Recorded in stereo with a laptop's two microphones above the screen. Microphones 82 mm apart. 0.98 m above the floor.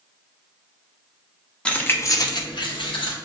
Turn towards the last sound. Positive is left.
turn(degrees=80)